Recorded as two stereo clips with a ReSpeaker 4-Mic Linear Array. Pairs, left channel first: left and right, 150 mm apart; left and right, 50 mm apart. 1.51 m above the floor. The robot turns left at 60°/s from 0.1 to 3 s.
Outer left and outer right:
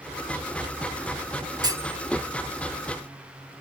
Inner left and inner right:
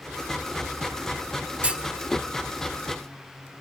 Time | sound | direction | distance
1.6 | a clunk | 30° right (ahead or behind) | ?